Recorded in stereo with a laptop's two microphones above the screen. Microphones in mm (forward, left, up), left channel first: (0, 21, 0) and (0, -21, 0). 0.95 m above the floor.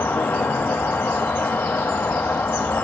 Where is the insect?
60° left (ahead or behind), 1.0 m.